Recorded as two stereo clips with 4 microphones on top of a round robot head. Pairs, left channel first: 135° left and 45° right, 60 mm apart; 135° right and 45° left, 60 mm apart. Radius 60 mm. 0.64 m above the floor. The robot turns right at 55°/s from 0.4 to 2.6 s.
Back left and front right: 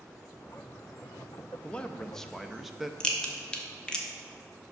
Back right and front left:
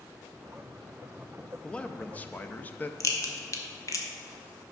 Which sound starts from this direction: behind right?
A crack, at 3.0 s.